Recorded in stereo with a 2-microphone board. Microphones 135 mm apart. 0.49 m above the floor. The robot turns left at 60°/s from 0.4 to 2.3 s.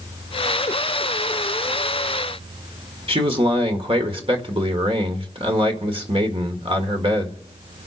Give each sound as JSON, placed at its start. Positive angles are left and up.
{"t": 3.1, "sound": "a man speaking", "side_deg": -45, "distance_m": 1.8}